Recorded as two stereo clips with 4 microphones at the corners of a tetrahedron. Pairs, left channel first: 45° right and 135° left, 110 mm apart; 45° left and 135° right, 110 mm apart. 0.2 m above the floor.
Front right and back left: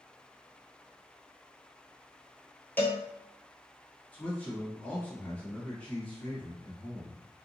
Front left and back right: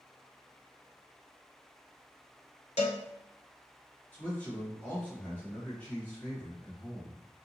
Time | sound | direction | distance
2.8 | a cowbell | 30° left | 0.7 m
4.1 | a man speaking | 5° left | 1.2 m